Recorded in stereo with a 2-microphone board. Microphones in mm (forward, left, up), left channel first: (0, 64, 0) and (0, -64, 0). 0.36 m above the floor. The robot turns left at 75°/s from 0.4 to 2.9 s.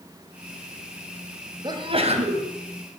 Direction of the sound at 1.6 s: 40° right.